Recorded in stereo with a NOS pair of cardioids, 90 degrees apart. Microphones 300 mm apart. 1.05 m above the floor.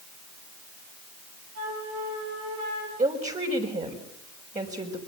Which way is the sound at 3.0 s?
25° right.